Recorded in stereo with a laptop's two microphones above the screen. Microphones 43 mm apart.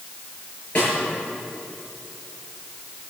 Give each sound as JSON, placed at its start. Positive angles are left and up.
{"t": 0.8, "sound": "a snare drum", "side_deg": 30, "distance_m": 6.5}